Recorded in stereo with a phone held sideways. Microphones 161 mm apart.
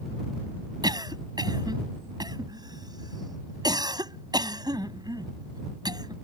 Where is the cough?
25° right (ahead or behind).